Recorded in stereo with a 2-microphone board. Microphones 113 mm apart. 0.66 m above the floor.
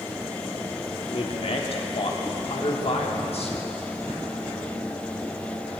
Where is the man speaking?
60° left (ahead or behind), 1.2 m.